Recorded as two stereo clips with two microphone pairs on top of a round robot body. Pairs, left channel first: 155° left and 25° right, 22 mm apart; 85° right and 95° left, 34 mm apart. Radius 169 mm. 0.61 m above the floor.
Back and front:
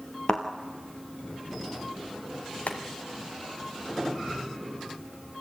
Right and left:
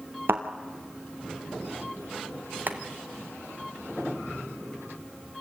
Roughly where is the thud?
Left.